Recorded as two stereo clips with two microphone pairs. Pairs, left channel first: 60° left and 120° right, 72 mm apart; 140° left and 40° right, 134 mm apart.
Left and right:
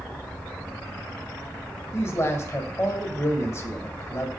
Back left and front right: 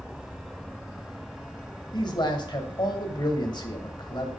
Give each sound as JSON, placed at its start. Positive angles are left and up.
{"t": 1.9, "sound": "a man speaking", "azimuth_deg": 100, "distance_m": 1.3}